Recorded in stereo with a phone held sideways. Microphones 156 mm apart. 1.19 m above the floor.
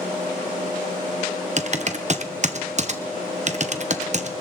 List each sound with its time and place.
1.6 s typing on a keyboard: 50° right (ahead or behind), 1.0 m